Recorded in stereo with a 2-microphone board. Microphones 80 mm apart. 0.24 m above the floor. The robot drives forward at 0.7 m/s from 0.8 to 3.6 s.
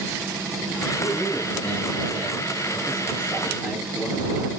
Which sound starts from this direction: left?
A man speaking, at 1.0 s.